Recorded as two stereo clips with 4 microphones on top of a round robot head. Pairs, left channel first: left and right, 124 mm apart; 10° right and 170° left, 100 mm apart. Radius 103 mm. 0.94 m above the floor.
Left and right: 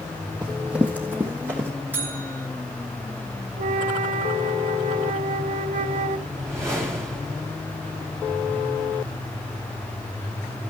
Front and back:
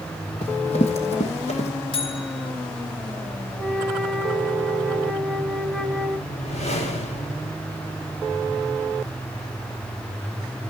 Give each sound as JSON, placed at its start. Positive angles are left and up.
{"t": 0.4, "sound": "running footsteps", "azimuth_deg": -5, "distance_m": 1.7}
{"t": 1.9, "sound": "a buzzer", "azimuth_deg": -15, "distance_m": 1.6}
{"t": 3.6, "sound": "a flute", "azimuth_deg": -95, "distance_m": 0.7}
{"t": 6.3, "sound": "a whoosh", "azimuth_deg": -20, "distance_m": 4.0}